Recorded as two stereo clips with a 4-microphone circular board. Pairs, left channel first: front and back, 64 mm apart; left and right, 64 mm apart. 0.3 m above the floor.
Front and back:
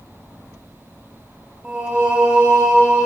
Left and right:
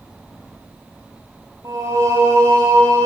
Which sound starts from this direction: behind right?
Singing, at 1.6 s.